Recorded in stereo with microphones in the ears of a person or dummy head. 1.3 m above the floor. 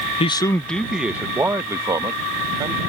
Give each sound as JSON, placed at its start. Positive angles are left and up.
{"t": 0.2, "sound": "a man speaking", "side_deg": 30}